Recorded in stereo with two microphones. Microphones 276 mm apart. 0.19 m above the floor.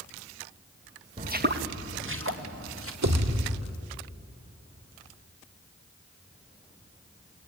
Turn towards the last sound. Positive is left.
turn(degrees=-80)